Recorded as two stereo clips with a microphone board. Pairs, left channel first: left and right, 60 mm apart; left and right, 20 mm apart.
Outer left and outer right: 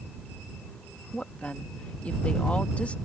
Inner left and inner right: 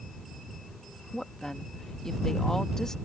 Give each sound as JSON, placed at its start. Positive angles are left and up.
{"t": 1.1, "sound": "a woman speaking", "side_deg": 20}